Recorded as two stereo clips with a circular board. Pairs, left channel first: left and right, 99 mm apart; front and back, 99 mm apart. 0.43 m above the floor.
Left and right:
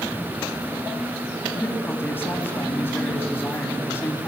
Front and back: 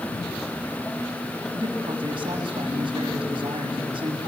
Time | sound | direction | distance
1.5 | a man speaking | 155° left | 3.5 m